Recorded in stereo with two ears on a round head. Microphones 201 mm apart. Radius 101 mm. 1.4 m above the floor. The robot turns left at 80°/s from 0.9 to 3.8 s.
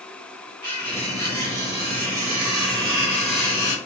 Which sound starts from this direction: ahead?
Cutlery clinking, at 0.6 s.